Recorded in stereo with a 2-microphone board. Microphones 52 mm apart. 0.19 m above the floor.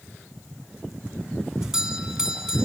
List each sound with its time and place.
1.6 s a doorbell: 10° right (ahead or behind), 2 m